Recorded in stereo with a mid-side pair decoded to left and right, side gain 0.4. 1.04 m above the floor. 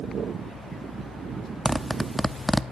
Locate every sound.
1.6 s a zipper: 5° left, 0.9 m